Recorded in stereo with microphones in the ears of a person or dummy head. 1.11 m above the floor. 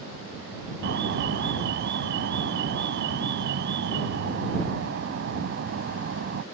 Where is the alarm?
55° right (ahead or behind).